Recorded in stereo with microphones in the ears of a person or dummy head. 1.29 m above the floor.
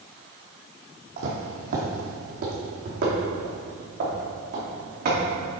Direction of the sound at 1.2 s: 45° right (ahead or behind).